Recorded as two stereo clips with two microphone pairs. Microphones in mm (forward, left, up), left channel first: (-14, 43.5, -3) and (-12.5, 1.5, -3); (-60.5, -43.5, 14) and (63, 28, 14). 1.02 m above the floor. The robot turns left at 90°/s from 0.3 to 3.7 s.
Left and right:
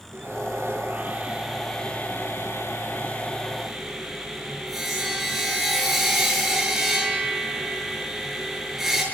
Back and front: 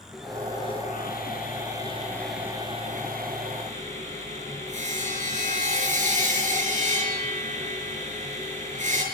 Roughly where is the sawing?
Ahead right.